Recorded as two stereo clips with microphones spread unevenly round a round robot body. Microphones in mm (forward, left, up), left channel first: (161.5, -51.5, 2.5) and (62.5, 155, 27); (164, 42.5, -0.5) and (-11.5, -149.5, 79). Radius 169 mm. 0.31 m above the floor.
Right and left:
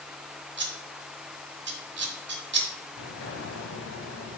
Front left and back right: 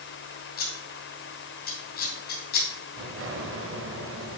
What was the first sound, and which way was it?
Scissors, 80° left.